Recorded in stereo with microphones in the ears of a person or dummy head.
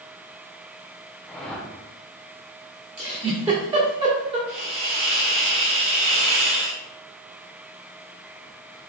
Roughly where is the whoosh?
Centre.